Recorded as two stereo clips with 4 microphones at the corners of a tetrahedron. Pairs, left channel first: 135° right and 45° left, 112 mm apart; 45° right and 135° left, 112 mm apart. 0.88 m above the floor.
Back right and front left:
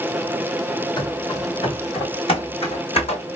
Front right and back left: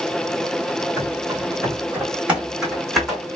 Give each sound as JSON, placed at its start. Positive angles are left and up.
{"t": 1.0, "sound": "running footsteps", "azimuth_deg": -175, "distance_m": 1.6}